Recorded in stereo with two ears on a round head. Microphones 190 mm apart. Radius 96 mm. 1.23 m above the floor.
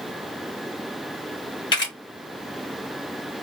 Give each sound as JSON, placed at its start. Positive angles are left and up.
{"t": 1.7, "sound": "a camera shutter", "side_deg": 25, "distance_m": 2.5}